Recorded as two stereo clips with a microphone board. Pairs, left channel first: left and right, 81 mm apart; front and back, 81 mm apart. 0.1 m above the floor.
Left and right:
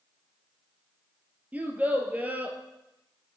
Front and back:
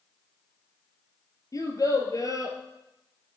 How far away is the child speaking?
About 1.1 m.